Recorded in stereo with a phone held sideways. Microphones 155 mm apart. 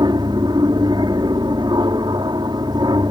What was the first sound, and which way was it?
An aircraft, 30° right (ahead or behind).